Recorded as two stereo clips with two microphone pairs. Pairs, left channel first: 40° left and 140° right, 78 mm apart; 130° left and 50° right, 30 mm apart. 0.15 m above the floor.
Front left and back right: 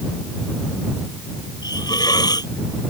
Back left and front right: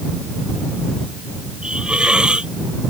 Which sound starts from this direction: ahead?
A hiss, at 1.6 s.